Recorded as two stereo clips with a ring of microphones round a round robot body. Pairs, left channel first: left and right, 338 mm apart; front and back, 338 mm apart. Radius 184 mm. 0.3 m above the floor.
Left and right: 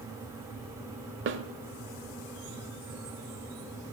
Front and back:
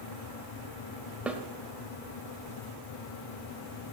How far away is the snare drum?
About 1.0 m.